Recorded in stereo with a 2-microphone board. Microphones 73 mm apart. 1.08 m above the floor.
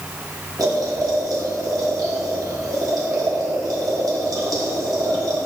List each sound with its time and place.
0.6 s boiling: 60° right (ahead or behind), 2.5 m